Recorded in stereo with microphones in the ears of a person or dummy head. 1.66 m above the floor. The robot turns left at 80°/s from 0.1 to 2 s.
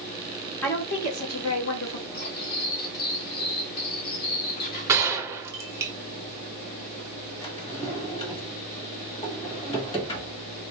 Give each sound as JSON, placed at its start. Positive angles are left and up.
{"t": 0.6, "sound": "a woman speaking", "azimuth_deg": 170, "distance_m": 1.3}
{"t": 2.1, "sound": "cutlery clinking", "side_deg": 55, "distance_m": 2.0}
{"t": 4.9, "sound": "a gunshot", "side_deg": -15, "distance_m": 0.9}
{"t": 7.4, "sound": "a drawer", "side_deg": 30, "distance_m": 1.5}